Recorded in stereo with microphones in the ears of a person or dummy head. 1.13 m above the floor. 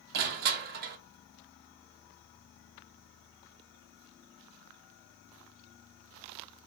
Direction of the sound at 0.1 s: 50° right (ahead or behind).